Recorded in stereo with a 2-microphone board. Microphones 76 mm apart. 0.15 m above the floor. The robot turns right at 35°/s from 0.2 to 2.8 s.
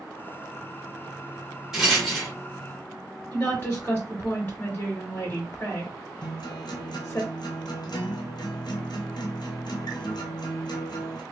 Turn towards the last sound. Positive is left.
turn(degrees=75)  # may be behind; listen again after turning